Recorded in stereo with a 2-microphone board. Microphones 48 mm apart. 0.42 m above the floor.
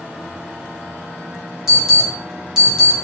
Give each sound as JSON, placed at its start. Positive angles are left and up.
{"t": 1.7, "sound": "an alarm", "side_deg": -10, "distance_m": 1.9}